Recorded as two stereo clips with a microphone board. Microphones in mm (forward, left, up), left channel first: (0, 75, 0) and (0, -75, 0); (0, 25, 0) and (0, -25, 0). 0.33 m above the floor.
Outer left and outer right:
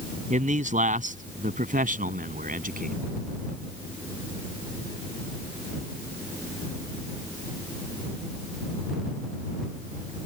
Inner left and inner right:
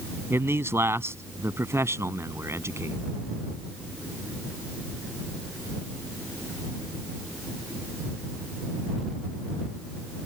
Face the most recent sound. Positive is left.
turn(degrees=-65)  # may be behind; listen again after turning